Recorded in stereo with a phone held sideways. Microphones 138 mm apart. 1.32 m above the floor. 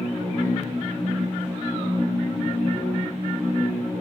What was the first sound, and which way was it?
A machine running, 15° left (ahead or behind).